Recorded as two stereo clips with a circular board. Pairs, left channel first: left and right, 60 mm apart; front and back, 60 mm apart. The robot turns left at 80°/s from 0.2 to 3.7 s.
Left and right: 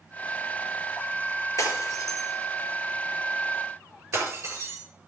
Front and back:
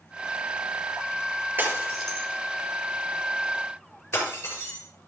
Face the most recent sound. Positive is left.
turn(degrees=-45)